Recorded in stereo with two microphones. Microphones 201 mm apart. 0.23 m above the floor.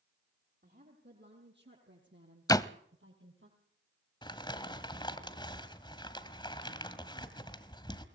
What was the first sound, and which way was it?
A woman speaking, 55° right (ahead or behind).